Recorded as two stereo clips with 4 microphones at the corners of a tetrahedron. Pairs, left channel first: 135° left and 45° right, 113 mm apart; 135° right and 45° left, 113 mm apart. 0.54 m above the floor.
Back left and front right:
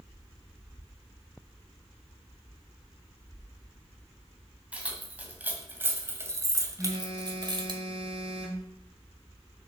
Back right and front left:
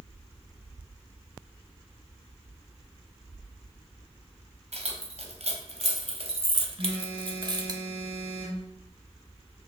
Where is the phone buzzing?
40° left, 5.5 m.